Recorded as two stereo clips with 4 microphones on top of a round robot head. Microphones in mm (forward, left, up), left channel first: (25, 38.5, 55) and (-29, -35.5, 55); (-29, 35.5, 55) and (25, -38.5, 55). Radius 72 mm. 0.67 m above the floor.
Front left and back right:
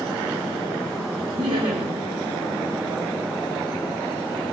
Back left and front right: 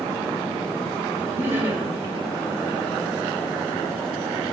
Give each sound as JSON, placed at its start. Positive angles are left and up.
{"t": 1.3, "sound": "laughter", "azimuth_deg": -115, "distance_m": 2.5}